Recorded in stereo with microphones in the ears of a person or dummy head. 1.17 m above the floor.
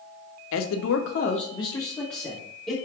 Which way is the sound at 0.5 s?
65° left (ahead or behind).